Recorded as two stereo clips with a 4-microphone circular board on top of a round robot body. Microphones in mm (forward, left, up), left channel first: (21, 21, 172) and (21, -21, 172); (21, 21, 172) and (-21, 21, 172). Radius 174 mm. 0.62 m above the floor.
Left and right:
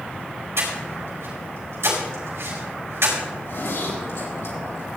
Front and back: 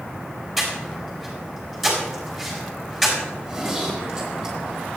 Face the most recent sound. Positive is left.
turn(degrees=100)